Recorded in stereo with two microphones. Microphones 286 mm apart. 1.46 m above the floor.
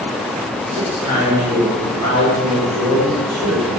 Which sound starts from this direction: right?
A man speaking, at 0.7 s.